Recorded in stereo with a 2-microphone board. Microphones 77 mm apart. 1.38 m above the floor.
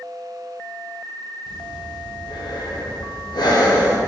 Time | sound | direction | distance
1.5 | breathing | 70° left (ahead or behind) | 0.5 m